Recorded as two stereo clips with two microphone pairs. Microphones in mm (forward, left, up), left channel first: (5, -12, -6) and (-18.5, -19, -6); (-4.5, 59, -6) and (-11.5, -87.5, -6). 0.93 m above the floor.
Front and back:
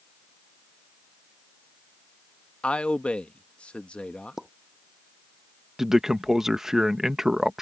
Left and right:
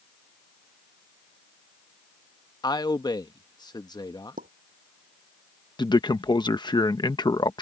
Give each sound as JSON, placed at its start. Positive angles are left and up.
{"t": 2.6, "sound": "a man speaking", "azimuth_deg": 30}
{"t": 4.4, "sound": "a pop", "azimuth_deg": -90}
{"t": 5.8, "sound": "a man speaking", "azimuth_deg": 135}